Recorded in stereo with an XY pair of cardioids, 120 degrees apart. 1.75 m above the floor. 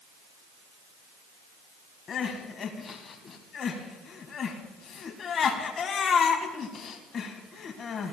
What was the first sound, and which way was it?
Crying, 45° left.